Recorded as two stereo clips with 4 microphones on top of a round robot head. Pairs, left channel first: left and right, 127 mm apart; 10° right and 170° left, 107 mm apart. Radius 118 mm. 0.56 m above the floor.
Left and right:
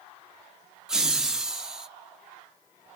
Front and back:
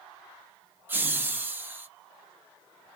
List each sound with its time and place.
0.9 s laughter: 170° right, 0.8 m